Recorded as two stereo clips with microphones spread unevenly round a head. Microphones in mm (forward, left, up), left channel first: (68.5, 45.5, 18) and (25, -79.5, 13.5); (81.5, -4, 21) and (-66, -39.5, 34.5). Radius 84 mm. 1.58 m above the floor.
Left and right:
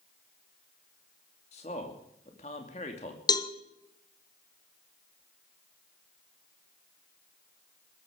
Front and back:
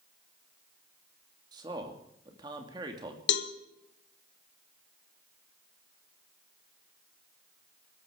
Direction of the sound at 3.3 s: 10° left.